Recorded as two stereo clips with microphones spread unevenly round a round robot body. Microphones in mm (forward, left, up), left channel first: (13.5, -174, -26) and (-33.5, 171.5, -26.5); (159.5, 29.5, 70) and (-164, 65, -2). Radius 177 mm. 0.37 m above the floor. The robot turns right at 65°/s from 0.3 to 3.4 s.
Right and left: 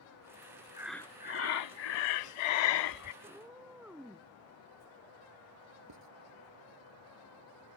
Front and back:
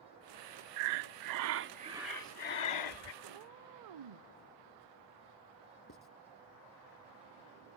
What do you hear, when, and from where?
0.8 s breathing: straight behind; by 3.1 s 30° right
3.2 s a cat meowing: 175° left; by 4.3 s 175° right
5.9 s writing: 50° left